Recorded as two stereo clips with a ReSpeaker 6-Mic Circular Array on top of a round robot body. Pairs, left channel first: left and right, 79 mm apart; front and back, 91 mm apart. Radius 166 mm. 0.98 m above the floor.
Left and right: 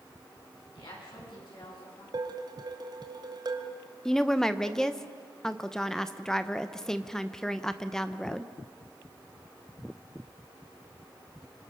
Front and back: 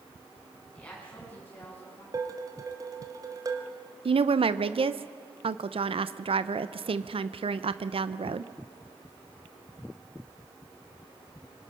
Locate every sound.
0.7 s a woman speaking: 75° left, 9.5 m; by 2.0 s 65° left, 9.5 m
2.1 s dishes clattering: 125° right, 1.6 m
4.0 s a woman speaking: 175° left, 0.8 m